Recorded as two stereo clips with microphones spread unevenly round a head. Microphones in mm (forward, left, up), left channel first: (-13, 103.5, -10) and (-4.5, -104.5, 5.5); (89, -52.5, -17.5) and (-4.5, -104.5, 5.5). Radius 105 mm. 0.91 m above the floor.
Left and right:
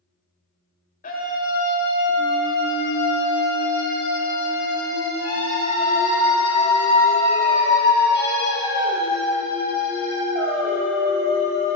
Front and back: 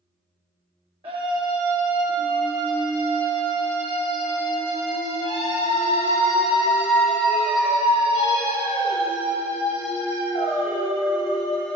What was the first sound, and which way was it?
A scream, 140° left.